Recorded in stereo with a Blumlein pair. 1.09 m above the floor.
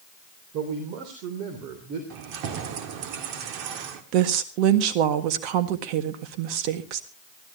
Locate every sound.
0.5 s a man speaking: 40° right, 3 m
2.1 s keys jangling: 40° right, 1.8 m
4.1 s a woman speaking: 40° right, 1.6 m